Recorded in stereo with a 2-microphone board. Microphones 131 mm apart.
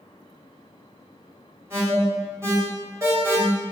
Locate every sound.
1.7 s an alarm: 20° right (ahead or behind), 1.4 m